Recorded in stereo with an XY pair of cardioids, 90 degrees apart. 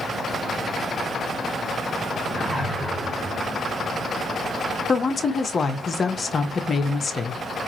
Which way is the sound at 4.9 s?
40° left.